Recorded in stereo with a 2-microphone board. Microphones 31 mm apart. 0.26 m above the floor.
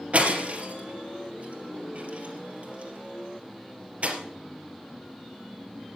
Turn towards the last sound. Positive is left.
turn(degrees=-50)  # may be behind; listen again after turning